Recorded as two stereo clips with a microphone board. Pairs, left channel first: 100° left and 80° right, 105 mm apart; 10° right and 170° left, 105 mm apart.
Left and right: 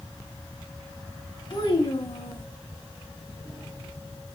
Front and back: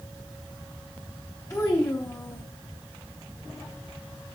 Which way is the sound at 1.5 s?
50° left.